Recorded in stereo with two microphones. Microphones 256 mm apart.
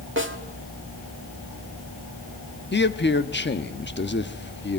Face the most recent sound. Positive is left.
turn(degrees=45)  # may be behind; listen again after turning